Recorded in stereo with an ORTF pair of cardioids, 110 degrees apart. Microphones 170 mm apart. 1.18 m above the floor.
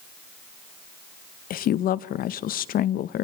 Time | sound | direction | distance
1.5 | a woman speaking | 60° left | 0.8 m